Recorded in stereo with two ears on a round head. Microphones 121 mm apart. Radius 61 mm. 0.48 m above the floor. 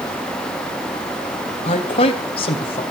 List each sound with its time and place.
1.6 s a man speaking: 45° left (ahead or behind), 2.5 m